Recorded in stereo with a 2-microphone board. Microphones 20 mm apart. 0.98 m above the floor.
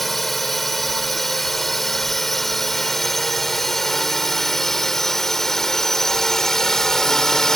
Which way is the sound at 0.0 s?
10° left (ahead or behind).